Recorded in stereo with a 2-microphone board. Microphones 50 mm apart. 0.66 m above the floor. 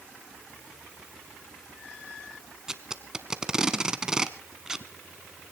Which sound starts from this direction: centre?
Tape being pulled, at 2.7 s.